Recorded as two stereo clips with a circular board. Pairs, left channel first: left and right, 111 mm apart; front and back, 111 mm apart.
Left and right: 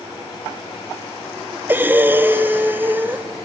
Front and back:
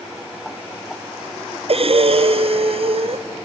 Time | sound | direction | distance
1.7 | breathing | 160° right | 0.5 m